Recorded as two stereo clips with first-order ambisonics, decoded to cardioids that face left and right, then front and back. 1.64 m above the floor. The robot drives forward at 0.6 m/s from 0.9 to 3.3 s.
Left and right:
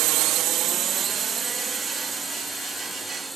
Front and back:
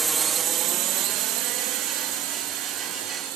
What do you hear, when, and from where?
0.0 s a drone: 105° right; by 3.4 s 175° right